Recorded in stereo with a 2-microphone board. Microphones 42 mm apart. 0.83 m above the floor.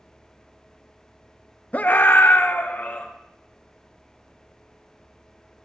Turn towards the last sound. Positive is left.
turn(degrees=50)  # may be behind; listen again after turning